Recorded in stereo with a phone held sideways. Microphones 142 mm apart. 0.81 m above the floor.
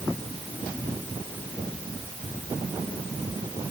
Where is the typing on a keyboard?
I don't hear typing on a keyboard.